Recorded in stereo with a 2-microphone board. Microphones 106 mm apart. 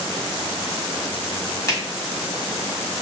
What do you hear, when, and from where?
1.7 s a finger snap: 30° left (ahead or behind), 1.5 m